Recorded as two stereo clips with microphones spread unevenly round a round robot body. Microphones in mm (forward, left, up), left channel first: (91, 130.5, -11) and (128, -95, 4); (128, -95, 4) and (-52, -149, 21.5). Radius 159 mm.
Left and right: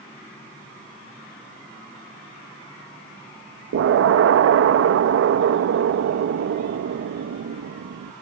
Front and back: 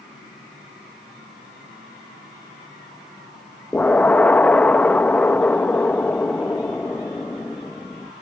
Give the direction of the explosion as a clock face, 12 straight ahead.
2 o'clock.